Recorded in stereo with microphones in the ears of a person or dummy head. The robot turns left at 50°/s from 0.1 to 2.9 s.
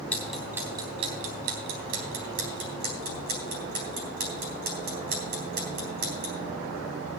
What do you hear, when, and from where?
0.1 s ticking: 10° left (ahead or behind), 3.5 m; by 6.3 s 45° right (ahead or behind), 3.5 m